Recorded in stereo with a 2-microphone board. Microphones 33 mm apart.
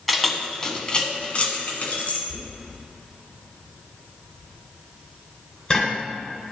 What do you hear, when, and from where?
0.1 s keys jangling: 5° left (ahead or behind), 1.0 m; by 2.2 s 55° left (ahead or behind), 1.5 m
2.3 s knocking: 25° left (ahead or behind), 1.5 m